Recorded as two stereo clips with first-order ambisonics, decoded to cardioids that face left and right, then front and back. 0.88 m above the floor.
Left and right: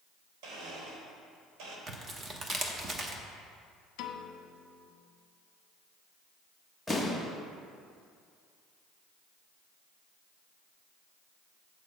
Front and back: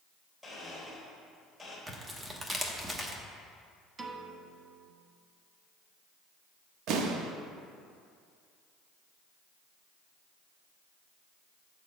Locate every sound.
0.4 s a blender: 90° right, 3 m
1.9 s tearing paper: 120° right, 0.9 m
4.0 s a piano: 110° left, 0.8 m
6.9 s an explosion: straight behind, 0.8 m